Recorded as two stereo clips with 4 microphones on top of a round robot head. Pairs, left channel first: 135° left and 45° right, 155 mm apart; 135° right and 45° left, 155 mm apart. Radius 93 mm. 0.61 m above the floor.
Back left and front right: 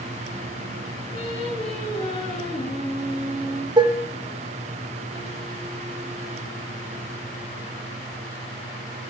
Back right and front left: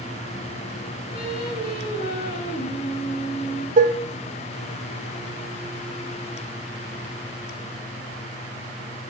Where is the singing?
170° right, 9 m.